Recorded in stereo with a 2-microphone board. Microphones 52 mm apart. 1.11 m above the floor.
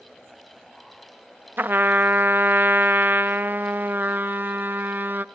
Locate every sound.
1.6 s a trumpet: 40° right (ahead or behind), 0.6 m